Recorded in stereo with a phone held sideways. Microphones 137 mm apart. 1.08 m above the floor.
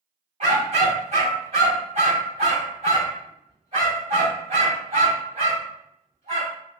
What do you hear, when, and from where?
0.4 s a dog barking: 50° right (ahead or behind), 2.0 m